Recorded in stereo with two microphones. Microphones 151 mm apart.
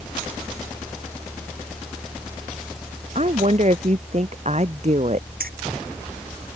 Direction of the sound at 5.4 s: 80° right.